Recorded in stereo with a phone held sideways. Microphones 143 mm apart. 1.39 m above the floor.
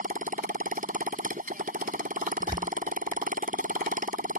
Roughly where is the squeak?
Right.